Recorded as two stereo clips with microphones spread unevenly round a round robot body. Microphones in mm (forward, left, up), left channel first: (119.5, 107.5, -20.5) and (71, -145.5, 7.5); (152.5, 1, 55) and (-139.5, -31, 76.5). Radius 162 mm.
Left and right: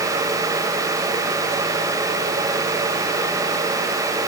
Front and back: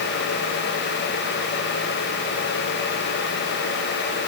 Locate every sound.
Only background noise.